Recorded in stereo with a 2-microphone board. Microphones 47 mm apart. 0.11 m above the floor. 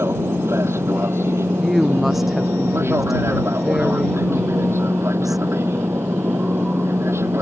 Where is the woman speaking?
5° right (ahead or behind).